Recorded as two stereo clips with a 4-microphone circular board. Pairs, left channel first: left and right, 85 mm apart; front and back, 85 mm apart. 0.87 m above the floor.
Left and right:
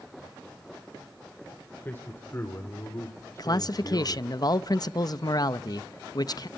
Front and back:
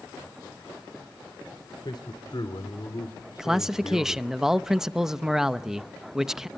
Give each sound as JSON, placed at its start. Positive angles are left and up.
{"t": 1.8, "sound": "a man speaking", "azimuth_deg": 25, "distance_m": 2.5}
{"t": 3.4, "sound": "a man speaking", "azimuth_deg": 95, "distance_m": 0.7}